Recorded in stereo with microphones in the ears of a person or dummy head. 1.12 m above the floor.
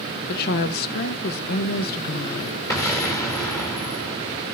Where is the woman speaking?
50° left (ahead or behind), 0.6 m.